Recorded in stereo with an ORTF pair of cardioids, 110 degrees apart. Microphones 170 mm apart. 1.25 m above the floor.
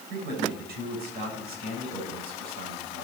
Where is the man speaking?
70° right, 7 m.